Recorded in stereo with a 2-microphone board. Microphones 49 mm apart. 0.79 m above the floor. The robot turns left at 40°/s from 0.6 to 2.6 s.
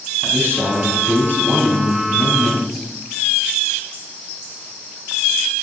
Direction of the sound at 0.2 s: 105° right.